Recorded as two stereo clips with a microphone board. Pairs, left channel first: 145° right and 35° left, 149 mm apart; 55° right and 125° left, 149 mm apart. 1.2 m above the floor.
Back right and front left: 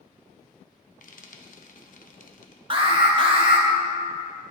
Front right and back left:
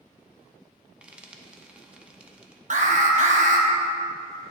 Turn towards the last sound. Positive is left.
turn(degrees=90)